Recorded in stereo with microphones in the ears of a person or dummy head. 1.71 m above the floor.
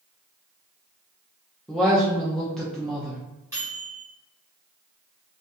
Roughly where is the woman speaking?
Centre.